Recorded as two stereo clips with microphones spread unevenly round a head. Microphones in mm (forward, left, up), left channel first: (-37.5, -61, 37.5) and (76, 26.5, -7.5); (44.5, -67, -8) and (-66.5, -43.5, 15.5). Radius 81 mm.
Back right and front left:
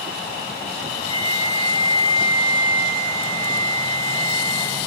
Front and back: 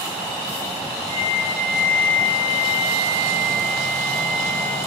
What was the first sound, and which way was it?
A flute, 65° left.